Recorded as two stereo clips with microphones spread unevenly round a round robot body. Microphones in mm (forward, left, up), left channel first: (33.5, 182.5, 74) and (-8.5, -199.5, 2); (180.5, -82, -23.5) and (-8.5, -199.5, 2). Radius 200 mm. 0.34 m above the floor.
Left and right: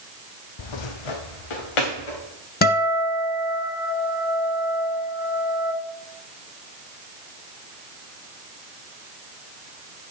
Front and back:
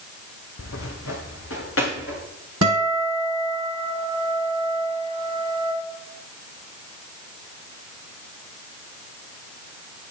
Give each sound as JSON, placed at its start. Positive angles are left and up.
{"t": 0.6, "sound": "footsteps", "azimuth_deg": 70, "distance_m": 0.6}
{"t": 2.6, "sound": "a guitar", "azimuth_deg": 155, "distance_m": 0.8}